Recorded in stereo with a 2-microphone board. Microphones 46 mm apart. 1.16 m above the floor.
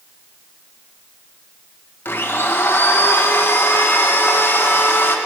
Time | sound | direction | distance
2.0 | a blender | 55° left (ahead or behind) | 1.1 m